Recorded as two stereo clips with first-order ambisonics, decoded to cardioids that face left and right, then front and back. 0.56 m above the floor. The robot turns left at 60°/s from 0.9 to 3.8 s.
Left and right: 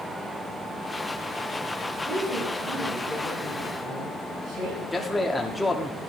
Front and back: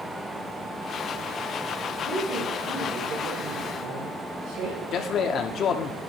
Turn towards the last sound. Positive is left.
turn(degrees=10)